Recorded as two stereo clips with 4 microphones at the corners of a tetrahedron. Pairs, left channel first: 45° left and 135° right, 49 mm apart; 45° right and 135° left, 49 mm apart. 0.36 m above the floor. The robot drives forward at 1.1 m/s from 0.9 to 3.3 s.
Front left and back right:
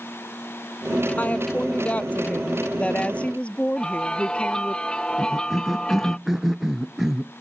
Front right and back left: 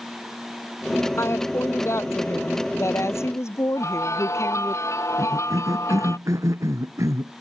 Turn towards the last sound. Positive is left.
turn(degrees=145)